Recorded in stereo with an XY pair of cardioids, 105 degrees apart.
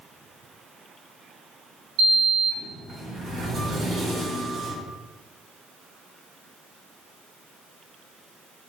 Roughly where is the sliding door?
Ahead right.